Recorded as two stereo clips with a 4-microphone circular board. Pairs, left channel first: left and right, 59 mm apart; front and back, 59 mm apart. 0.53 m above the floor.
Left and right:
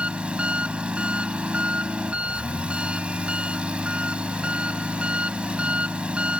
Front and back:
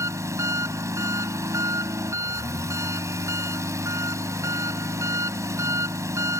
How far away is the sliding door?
No sliding door in this recording.